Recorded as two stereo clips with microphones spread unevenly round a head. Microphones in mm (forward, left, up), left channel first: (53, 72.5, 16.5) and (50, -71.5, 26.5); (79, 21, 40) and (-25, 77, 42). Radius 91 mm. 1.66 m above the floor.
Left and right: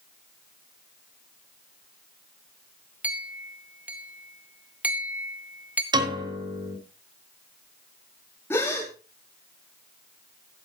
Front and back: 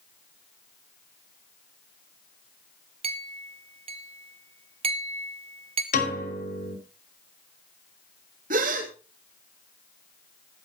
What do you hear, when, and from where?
3.0 s a clink: 165° right, 0.8 m
5.9 s a piano: 30° right, 6 m
8.5 s a gasp: 170° left, 3 m